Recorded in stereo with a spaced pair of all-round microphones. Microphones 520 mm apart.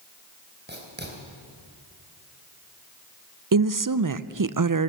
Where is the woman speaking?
40° right (ahead or behind), 0.6 m.